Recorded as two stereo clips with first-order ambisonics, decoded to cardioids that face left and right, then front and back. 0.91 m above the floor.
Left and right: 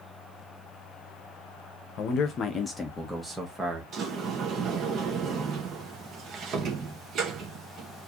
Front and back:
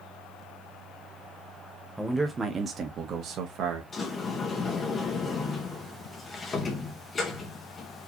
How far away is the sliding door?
About 1.0 m.